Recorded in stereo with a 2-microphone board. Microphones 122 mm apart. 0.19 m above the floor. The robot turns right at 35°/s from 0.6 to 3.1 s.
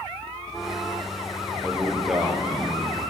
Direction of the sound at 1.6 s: 165° left.